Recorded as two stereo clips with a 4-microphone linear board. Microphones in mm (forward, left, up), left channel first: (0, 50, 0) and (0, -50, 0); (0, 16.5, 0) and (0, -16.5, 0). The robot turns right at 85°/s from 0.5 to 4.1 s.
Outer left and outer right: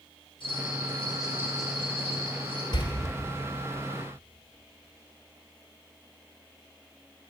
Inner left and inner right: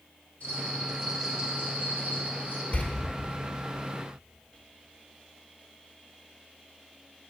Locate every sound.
0.4 s a bell: 125° left, 2.5 m; by 2.6 s 55° right, 2.5 m
2.7 s a door slam: 45° left (ahead or behind), 1.1 m; by 2.9 s 40° left (ahead or behind), 1.1 m